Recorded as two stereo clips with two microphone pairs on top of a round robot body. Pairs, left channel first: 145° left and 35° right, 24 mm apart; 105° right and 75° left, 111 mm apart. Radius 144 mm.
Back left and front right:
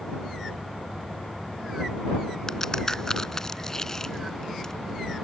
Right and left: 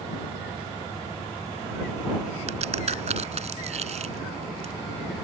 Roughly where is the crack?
Left.